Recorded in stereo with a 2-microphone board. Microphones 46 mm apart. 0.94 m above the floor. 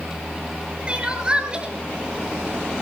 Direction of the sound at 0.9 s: 25° right (ahead or behind).